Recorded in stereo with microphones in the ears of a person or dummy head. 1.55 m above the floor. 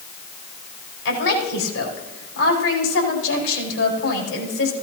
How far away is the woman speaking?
About 4.5 m.